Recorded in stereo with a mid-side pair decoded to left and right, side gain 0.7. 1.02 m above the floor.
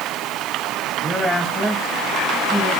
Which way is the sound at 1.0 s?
15° left.